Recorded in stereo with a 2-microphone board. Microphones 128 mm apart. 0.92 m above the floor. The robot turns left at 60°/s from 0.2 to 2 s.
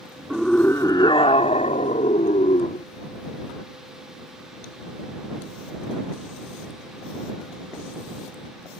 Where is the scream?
Straight behind; by 2.9 s 80° left.